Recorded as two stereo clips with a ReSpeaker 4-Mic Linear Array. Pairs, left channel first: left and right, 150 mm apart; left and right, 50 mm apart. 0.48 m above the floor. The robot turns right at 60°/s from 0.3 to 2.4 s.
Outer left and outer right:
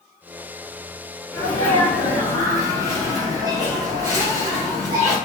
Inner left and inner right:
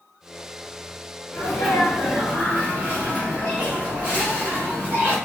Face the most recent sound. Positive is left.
turn(degrees=-150)